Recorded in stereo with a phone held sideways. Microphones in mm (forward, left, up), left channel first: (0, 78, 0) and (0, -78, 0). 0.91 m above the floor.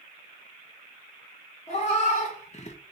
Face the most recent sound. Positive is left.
turn(degrees=45)  # may be behind; listen again after turning